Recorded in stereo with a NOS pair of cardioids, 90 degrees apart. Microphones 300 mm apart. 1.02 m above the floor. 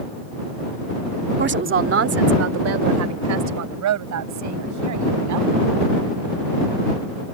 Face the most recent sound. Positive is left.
turn(degrees=-75)